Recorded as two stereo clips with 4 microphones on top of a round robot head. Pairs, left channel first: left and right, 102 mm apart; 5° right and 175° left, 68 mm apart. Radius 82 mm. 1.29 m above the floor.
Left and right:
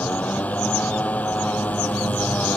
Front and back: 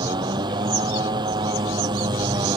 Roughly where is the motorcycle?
Behind.